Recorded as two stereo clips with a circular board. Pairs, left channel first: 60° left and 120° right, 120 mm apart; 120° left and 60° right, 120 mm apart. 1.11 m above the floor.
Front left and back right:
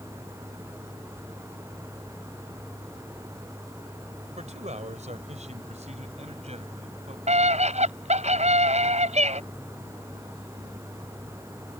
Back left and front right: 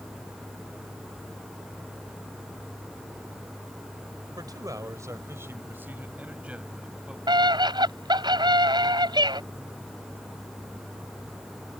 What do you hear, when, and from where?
4.4 s a man speaking: 115° right; by 7.2 s 145° right
7.3 s a scream: 110° right